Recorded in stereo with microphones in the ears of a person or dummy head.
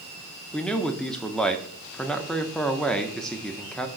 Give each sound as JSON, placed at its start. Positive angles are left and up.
{"t": 0.5, "sound": "a man speaking", "side_deg": 0, "distance_m": 0.5}